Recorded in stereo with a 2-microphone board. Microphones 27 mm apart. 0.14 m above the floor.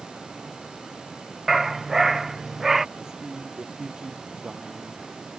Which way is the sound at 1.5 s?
10° right (ahead or behind).